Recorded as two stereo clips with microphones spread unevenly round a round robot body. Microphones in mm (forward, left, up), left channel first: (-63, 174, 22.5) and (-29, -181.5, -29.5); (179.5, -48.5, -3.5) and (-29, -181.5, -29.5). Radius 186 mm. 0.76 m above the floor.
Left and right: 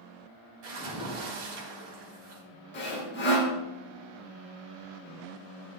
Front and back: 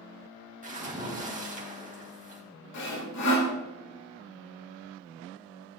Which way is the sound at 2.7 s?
30° left.